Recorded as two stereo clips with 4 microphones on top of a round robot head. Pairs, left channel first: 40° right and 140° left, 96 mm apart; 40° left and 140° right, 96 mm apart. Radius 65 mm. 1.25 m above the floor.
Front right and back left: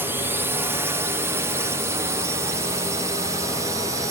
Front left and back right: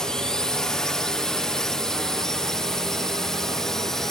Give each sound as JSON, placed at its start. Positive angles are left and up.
{"t": 0.0, "sound": "a drone", "azimuth_deg": 115}